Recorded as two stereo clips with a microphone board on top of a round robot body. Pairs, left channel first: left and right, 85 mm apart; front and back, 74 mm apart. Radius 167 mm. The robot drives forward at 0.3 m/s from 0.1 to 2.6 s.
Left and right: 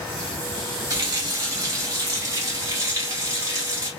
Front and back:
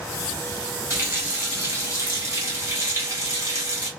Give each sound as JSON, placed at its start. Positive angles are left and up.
{"t": 0.9, "sound": "a running tap", "azimuth_deg": -135, "distance_m": 1.8}